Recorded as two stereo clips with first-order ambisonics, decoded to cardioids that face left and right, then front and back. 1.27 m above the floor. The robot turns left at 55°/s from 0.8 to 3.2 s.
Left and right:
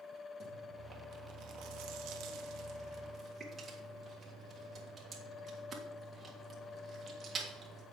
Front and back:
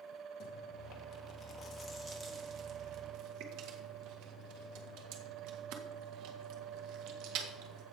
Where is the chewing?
35° right, 1.6 m; by 7.8 s 165° right, 1.6 m.